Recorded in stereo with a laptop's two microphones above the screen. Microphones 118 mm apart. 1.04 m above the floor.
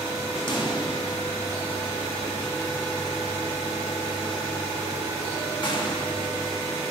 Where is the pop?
40° left (ahead or behind), 1.5 m.